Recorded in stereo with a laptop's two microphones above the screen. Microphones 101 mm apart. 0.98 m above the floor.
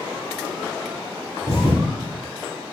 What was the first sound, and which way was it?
A thud, 70° right (ahead or behind).